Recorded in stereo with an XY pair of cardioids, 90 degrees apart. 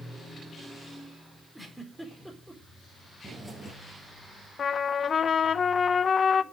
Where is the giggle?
15° right, 4.5 m.